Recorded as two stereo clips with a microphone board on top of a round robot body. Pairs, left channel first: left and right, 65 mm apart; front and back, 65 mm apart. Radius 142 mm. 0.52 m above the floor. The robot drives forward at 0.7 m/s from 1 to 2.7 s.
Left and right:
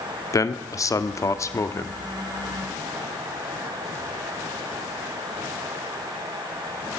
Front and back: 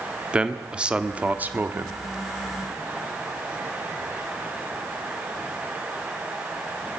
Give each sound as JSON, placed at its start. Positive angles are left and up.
{"t": 0.3, "sound": "a man speaking", "azimuth_deg": 105, "distance_m": 1.7}